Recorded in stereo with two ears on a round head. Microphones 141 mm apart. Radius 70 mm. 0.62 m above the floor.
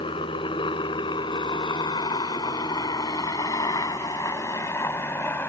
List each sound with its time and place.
0.0 s a helicopter: 30° left (ahead or behind); by 5.5 s 10° left (ahead or behind)